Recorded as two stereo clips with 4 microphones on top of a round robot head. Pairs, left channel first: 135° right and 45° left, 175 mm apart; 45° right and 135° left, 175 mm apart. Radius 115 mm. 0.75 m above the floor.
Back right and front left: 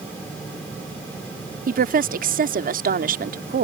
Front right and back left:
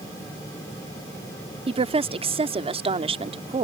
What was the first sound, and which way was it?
A woman speaking, 80° left.